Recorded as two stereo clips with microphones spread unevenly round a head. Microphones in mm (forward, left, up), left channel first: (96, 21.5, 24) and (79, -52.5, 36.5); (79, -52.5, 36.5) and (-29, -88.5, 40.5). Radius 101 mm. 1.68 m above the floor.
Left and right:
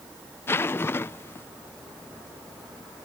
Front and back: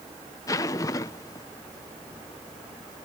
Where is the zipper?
45° left.